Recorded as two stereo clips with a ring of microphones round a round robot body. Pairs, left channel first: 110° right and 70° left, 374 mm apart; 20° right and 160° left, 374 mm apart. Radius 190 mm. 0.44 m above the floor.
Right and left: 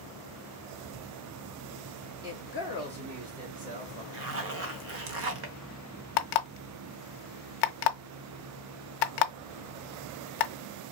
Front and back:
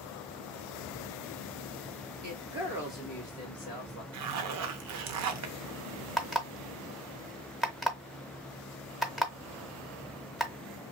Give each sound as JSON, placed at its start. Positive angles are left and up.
{"t": 2.2, "sound": "a woman speaking", "azimuth_deg": 135, "distance_m": 1.4}
{"t": 4.1, "sound": "a zipper", "azimuth_deg": 115, "distance_m": 0.6}
{"t": 6.2, "sound": "an alarm clock", "azimuth_deg": -115, "distance_m": 0.5}